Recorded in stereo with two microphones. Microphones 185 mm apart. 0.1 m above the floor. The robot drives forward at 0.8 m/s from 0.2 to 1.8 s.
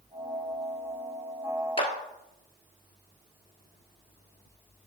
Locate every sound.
1.8 s a clap: 30° left (ahead or behind), 1.3 m